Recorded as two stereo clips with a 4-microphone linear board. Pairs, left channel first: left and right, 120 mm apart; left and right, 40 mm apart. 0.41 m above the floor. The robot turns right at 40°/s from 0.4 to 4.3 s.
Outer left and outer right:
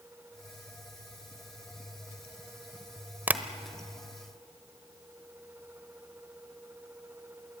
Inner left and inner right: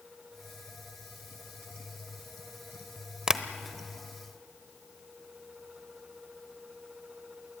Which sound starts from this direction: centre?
Tapping, at 3.3 s.